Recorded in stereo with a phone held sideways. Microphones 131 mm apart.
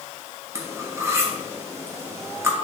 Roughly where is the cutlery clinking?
Centre.